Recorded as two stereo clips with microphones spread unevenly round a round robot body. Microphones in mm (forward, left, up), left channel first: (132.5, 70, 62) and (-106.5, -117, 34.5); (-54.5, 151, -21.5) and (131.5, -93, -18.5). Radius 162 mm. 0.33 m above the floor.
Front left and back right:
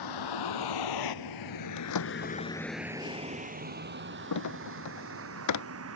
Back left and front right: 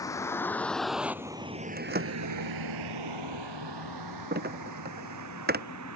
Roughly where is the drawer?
Ahead.